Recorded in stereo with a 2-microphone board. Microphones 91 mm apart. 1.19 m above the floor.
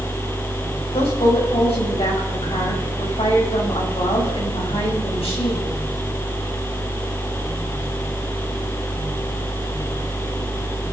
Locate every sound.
0.9 s a woman speaking: 85° left, 7 m